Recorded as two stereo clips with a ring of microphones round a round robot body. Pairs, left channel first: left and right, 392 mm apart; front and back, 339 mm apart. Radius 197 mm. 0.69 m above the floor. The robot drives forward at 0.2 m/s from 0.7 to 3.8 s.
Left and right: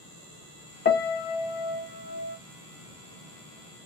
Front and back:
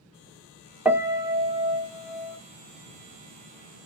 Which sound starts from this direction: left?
A piano, at 0.8 s.